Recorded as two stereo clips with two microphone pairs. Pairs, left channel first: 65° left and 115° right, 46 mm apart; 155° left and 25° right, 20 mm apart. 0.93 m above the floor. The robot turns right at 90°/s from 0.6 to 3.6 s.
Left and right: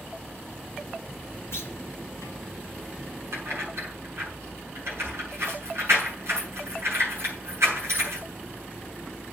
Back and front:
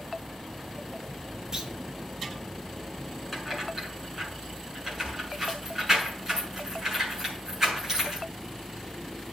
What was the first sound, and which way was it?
A clunk, 40° left.